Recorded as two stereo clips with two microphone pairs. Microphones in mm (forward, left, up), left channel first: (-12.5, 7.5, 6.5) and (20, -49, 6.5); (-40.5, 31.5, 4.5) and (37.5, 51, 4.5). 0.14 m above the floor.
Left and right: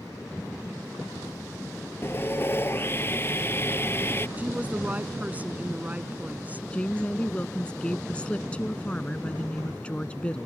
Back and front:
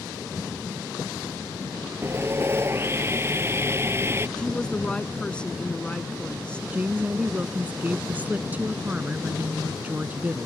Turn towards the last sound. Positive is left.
turn(degrees=65)